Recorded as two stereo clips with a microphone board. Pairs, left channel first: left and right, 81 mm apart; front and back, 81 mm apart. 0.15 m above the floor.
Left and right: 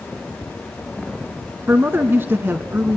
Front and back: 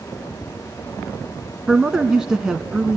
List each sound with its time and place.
1.7 s a man speaking: 110° right, 1.1 m